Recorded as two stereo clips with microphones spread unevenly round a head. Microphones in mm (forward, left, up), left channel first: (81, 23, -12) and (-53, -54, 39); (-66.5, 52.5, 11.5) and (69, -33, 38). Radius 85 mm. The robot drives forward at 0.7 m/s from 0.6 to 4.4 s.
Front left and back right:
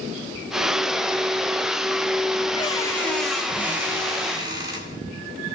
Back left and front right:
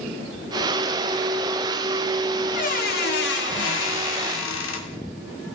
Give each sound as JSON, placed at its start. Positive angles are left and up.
{"t": 2.5, "sound": "a squeak", "azimuth_deg": 100, "distance_m": 1.1}